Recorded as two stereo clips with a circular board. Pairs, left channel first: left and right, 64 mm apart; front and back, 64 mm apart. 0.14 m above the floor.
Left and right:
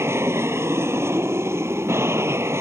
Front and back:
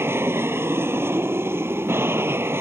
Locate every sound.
0.0 s an aircraft: 135° right; by 2.6 s 130° right